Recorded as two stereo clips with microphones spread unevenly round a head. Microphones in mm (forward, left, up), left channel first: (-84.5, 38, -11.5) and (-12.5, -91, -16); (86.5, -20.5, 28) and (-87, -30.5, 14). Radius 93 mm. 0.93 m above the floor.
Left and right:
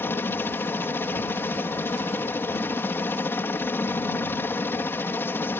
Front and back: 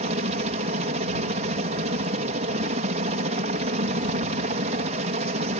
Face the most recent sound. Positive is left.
turn(degrees=-175)